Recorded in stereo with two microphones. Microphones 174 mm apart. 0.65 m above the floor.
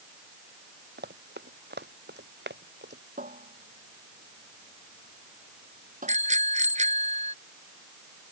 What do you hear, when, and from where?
1.0 s running footsteps: 75° right (ahead or behind); by 3.0 s 80° right
3.2 s a cupboard door: 50° right (ahead or behind)
6.1 s a bicycle bell: 40° right (ahead or behind)